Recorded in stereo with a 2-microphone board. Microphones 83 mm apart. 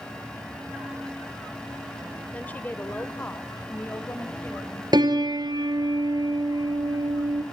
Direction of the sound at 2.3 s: 15° left (ahead or behind).